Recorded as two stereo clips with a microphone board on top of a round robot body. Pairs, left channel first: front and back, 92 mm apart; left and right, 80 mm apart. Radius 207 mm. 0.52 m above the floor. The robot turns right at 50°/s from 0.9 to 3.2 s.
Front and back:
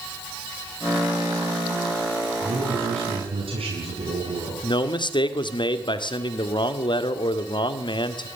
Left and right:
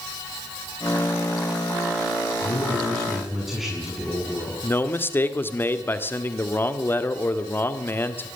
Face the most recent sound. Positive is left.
turn(degrees=30)